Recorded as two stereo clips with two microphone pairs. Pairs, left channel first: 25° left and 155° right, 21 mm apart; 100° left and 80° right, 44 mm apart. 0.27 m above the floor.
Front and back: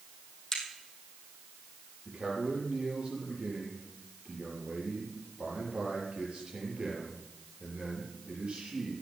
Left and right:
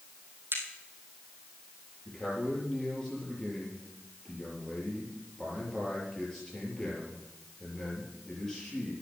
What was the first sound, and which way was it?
A crack, 50° right.